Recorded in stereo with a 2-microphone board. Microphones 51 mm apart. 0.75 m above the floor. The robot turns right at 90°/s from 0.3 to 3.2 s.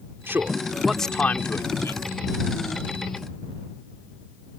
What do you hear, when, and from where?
0.3 s a man speaking: 45° right (ahead or behind); by 2.0 s 65° left (ahead or behind)